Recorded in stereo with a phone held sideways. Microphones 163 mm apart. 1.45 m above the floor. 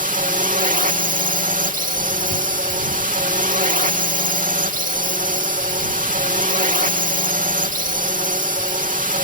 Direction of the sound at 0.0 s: 50° right (ahead or behind).